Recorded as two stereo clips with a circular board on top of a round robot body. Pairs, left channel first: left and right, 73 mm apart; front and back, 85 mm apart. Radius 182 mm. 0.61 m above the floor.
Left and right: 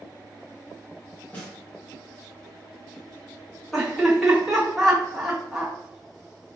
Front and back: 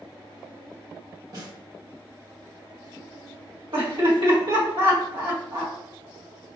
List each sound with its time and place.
1.3 s a snare drum: 155° left, 1.5 m
3.7 s laughter: 175° left, 1.8 m